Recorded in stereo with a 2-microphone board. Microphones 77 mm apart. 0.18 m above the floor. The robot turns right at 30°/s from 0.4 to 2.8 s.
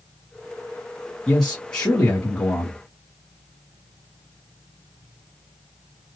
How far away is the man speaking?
About 1.7 m.